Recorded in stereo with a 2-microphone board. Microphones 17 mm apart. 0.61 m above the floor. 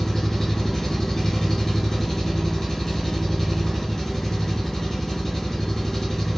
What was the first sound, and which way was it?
An engine running, 30° left (ahead or behind).